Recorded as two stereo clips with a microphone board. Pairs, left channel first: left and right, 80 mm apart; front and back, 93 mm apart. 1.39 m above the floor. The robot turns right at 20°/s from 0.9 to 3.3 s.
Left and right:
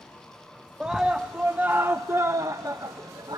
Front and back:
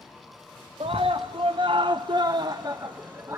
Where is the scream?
170° right, 0.7 m; by 3.4 s 120° right, 0.7 m.